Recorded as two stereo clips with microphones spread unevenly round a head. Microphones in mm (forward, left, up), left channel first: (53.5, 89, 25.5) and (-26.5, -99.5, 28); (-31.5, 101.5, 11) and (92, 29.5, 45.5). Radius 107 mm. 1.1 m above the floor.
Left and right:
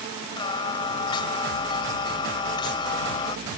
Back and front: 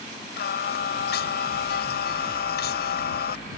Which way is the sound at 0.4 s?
140° left.